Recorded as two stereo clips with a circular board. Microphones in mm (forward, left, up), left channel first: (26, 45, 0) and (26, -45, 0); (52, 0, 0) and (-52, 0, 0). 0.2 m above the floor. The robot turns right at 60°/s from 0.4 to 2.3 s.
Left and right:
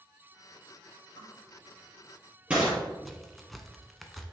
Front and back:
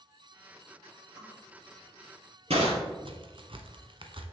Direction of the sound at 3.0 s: Straight behind.